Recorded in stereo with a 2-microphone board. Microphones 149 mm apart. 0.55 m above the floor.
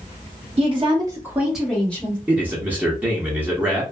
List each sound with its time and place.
0.6 s a woman speaking: 40° right (ahead or behind), 1.2 m; by 2.2 s 15° left (ahead or behind), 1.8 m
2.3 s a man speaking: 10° right (ahead or behind), 0.7 m